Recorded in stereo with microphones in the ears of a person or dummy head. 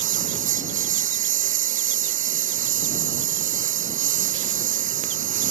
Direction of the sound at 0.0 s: 35° right (ahead or behind).